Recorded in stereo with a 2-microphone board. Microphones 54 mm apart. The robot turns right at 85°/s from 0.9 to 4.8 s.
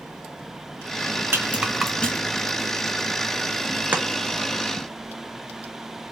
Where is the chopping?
30° right (ahead or behind), 0.7 m; by 4.0 s 20° right (ahead or behind), 0.7 m.